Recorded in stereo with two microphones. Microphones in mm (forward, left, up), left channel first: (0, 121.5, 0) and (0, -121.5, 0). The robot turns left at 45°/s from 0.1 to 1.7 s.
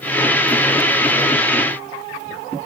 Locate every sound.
Only background noise.